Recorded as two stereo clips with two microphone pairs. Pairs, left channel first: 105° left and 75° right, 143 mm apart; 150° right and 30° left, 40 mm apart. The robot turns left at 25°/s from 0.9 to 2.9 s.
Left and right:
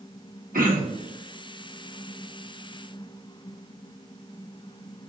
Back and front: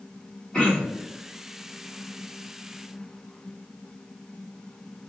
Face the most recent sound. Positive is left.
turn(degrees=-125)